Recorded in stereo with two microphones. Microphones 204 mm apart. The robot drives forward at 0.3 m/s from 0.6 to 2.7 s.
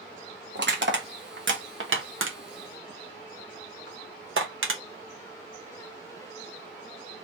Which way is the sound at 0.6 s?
60° right (ahead or behind).